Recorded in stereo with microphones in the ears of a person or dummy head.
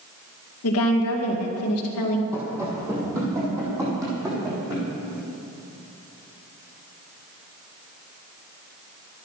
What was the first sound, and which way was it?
A woman speaking, 85° left.